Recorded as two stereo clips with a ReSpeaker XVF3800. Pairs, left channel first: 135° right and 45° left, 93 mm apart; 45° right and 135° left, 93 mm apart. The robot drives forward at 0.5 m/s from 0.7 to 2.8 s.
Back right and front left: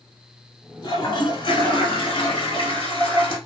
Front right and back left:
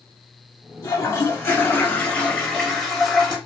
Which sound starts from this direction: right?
A toilet flushing, at 0.8 s.